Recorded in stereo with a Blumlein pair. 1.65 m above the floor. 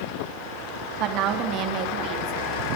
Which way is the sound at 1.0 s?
35° right.